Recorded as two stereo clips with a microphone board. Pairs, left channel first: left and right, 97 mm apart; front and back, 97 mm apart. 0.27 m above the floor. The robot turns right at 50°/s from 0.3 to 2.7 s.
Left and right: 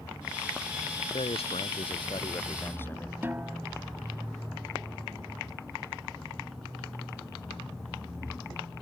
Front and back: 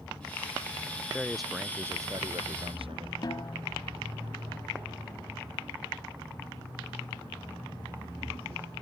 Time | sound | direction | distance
1.1 | a man speaking | 80° left | ?
3.2 | a snare drum | 25° right | ?